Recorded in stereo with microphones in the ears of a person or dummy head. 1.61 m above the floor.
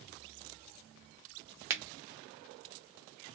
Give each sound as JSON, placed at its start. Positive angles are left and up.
{"t": 1.7, "sound": "a finger snap", "side_deg": -10, "distance_m": 0.6}